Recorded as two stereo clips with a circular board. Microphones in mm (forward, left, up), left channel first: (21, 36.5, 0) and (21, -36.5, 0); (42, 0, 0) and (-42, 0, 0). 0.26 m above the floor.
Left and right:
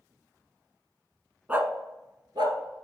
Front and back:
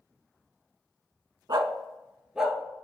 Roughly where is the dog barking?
Behind right.